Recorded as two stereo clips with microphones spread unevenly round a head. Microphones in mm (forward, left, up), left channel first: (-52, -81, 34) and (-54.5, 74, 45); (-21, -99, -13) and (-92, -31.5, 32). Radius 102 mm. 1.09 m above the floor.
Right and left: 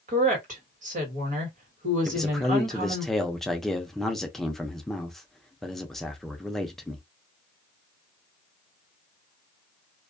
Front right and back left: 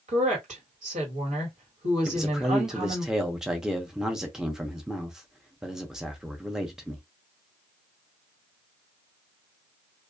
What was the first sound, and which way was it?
A woman speaking, 130° left.